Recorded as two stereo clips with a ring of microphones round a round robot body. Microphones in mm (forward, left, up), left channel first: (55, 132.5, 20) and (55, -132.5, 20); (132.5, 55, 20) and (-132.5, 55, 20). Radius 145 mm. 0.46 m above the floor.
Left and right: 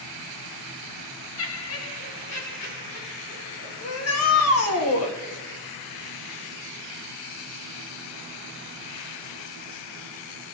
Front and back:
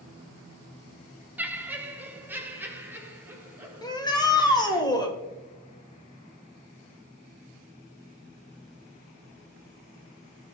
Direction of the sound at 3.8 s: 75° left.